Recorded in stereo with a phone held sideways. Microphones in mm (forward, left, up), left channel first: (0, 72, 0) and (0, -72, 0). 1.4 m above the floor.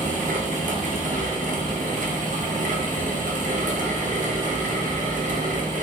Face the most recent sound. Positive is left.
turn(degrees=-65)  # may be behind; listen again after turning